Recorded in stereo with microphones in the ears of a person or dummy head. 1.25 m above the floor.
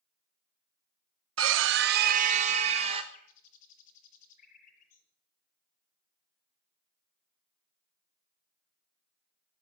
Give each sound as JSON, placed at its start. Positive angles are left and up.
{"t": 1.4, "sound": "a scream", "side_deg": -70, "distance_m": 0.9}
{"t": 3.1, "sound": "a bird", "side_deg": 50, "distance_m": 7.5}